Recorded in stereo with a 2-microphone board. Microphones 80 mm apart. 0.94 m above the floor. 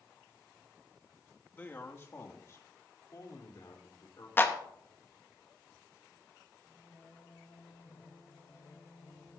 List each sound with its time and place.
1.5 s a man speaking: 25° left (ahead or behind), 1.3 m; by 4.3 s 60° left (ahead or behind), 3 m
4.4 s a clap: 25° left (ahead or behind), 1.1 m
6.7 s singing: 40° left (ahead or behind), 4.5 m